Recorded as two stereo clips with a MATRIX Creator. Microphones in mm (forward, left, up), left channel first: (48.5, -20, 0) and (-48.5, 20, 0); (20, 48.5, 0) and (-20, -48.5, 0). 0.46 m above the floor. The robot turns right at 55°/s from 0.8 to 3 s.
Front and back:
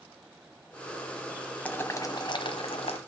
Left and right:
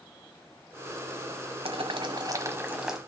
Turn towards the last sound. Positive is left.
turn(degrees=-25)